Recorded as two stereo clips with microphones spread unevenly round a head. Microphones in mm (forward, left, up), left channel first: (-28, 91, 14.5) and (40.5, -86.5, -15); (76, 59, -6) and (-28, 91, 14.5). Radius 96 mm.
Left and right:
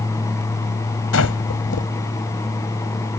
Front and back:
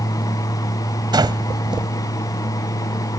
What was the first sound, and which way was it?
Breathing, 115° left.